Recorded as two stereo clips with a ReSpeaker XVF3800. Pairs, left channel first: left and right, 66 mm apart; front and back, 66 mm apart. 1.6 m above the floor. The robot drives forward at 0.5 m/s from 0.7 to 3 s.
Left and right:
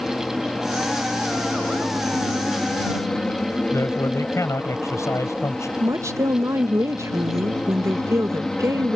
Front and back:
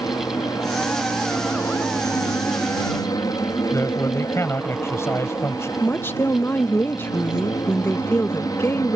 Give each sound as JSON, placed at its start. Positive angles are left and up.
{"t": 0.0, "sound": "an aircraft", "azimuth_deg": 10}
{"t": 3.7, "sound": "a man speaking", "azimuth_deg": 50}
{"t": 5.8, "sound": "a woman speaking", "azimuth_deg": -50}